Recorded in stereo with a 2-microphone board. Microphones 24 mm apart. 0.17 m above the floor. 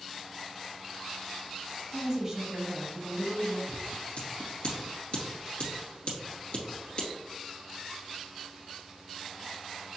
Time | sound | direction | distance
1.9 | a woman speaking | 25° right (ahead or behind) | 1.3 m
3.7 | scissors | 55° left (ahead or behind) | 2.5 m